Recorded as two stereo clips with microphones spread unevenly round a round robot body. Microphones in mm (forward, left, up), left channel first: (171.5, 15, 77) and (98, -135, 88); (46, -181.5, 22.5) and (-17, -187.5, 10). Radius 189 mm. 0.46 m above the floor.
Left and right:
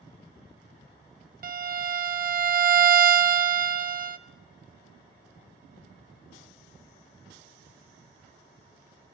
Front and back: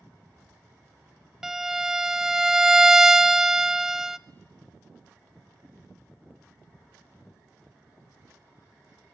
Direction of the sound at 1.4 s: 85° right.